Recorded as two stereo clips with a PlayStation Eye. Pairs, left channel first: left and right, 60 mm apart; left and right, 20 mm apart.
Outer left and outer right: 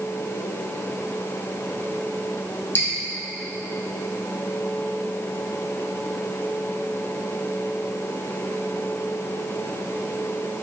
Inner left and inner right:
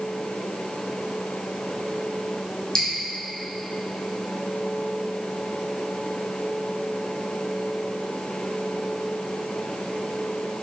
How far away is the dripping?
About 3 m.